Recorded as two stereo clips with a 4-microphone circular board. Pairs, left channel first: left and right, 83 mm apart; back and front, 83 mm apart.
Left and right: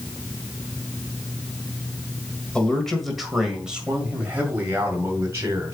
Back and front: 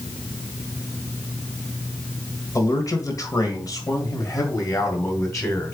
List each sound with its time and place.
2.5 s a man speaking: 165° left, 1.7 m; by 5.7 s 135° right, 2.5 m